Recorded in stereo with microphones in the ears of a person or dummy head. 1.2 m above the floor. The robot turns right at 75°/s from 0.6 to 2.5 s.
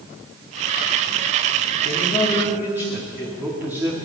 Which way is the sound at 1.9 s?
145° left.